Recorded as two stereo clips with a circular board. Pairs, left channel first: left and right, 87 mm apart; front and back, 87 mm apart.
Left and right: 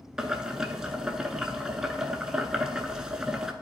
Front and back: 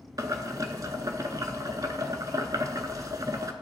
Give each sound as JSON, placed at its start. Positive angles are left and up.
{"t": 0.2, "sound": "boiling", "azimuth_deg": -170, "distance_m": 0.6}